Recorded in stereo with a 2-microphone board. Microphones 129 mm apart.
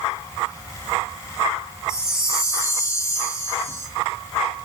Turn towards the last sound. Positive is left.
turn(degrees=20)  # may be behind; listen again after turning